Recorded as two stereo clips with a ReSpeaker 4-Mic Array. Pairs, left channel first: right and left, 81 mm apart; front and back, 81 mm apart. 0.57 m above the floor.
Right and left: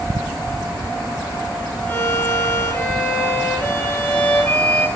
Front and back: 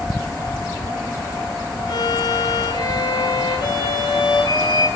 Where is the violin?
20° right, 6.5 m.